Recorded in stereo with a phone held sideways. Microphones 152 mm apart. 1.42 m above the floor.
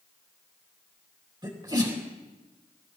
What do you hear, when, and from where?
1.4 s a sneeze: 30° right (ahead or behind), 3 m